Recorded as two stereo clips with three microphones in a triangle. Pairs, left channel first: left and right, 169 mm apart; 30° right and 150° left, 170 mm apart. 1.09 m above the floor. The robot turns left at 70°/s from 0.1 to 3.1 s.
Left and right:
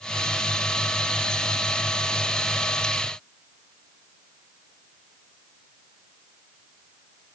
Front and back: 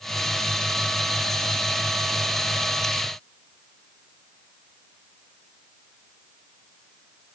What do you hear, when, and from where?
Only background noise.